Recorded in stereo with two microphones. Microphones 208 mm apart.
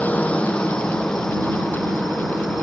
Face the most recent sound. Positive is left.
turn(degrees=0)  # may be behind; listen again after turning